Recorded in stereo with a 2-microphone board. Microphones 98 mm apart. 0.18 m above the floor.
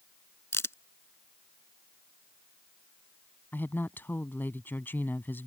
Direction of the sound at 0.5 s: 25° left (ahead or behind).